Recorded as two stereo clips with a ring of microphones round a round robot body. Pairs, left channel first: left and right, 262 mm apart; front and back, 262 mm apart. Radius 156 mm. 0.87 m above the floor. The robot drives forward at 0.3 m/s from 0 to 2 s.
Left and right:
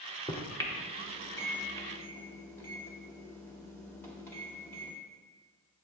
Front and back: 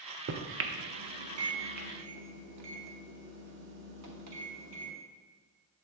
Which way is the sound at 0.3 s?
160° left.